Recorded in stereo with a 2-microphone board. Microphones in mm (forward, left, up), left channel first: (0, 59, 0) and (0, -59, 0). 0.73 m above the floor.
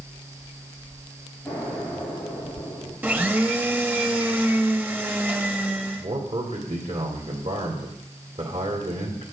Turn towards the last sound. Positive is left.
turn(degrees=-70)  # may be behind; listen again after turning